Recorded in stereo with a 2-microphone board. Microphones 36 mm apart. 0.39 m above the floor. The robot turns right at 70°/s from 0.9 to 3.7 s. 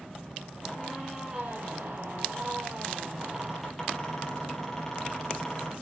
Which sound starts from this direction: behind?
A squeak, at 0.6 s.